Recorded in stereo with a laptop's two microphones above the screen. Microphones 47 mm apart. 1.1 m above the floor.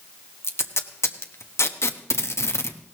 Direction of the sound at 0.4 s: 80° left.